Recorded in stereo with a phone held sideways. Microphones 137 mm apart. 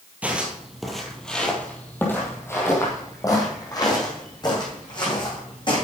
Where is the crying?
I don't hear crying.